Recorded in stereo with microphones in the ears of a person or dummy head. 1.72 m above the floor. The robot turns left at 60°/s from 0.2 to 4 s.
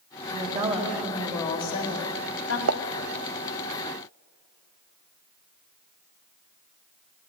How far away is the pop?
About 0.8 m.